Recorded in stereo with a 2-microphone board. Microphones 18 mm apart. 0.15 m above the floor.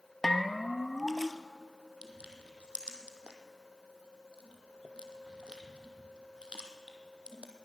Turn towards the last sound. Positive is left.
turn(degrees=-60)  # may be behind; listen again after turning